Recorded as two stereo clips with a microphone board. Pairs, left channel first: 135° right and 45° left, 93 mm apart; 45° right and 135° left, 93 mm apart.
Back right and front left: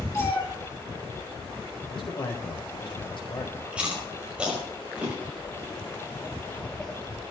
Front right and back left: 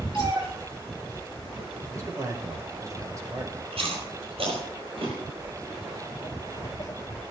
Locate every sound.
0.1 s a cat meowing: 165° left, 8.5 m
1.9 s a man speaking: 170° right, 5 m
3.7 s chewing: 125° left, 5.5 m
5.4 s footsteps: 100° right, 2.5 m; by 7.2 s 15° right, 1.2 m